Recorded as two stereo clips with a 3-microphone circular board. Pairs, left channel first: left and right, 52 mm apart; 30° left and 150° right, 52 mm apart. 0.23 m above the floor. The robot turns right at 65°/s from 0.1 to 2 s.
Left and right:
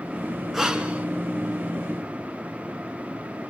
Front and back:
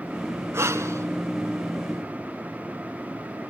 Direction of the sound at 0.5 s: Straight behind.